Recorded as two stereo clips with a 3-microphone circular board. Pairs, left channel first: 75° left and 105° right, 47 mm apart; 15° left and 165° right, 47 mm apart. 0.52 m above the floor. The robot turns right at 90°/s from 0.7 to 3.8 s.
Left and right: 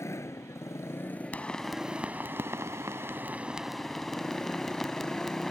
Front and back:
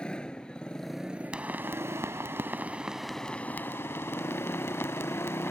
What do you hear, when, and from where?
0.0 s a motorcycle: 85° left; by 5.5 s 5° left
1.3 s a pop: 130° left; by 5.5 s 10° right